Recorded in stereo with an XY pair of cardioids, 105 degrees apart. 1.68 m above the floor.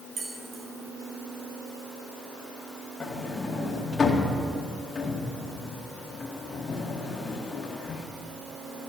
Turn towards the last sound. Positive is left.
turn(degrees=40)